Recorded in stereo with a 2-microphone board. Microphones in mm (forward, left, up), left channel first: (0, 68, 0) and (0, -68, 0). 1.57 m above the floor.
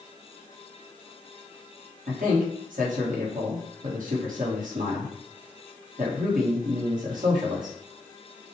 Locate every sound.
2.1 s a man speaking: 75° right (ahead or behind), 1.4 m